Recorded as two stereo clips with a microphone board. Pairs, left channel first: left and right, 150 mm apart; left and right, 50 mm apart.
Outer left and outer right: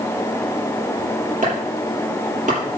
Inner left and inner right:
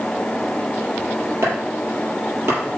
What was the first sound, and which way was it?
Chopping, 55° right (ahead or behind).